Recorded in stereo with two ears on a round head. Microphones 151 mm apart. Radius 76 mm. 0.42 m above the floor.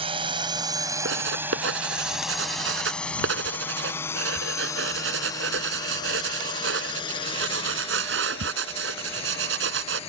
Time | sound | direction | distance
0.0 | a drone | 30° right (ahead or behind) | ?
1.1 | writing | 80° right | ?